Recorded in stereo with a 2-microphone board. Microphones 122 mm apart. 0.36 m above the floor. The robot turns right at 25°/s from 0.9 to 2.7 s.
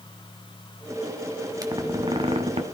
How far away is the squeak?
About 1.4 m.